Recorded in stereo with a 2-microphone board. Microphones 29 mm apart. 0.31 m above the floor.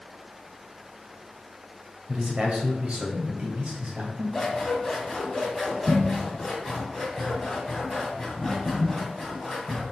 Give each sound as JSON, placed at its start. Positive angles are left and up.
{"t": 2.1, "sound": "a man speaking", "side_deg": -30, "distance_m": 1.7}
{"t": 4.3, "sound": "scissors", "side_deg": 10, "distance_m": 1.8}